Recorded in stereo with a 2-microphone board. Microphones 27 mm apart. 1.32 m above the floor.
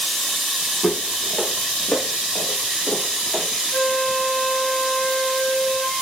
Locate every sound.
0.8 s footsteps: 65° left (ahead or behind), 3 m
3.7 s a flute: 35° left (ahead or behind), 5.5 m